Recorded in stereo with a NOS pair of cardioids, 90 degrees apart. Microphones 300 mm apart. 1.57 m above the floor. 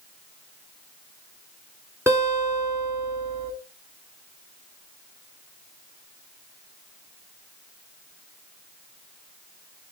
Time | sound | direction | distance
2.1 | a guitar | 10° right | 3 m